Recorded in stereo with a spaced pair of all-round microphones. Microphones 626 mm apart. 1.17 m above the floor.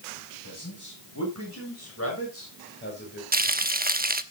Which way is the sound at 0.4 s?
30° left (ahead or behind).